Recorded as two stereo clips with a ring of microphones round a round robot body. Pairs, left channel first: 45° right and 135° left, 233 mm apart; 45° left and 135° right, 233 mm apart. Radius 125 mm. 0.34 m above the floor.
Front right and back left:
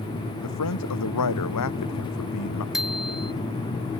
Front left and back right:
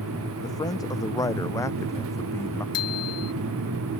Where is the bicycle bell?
45° left.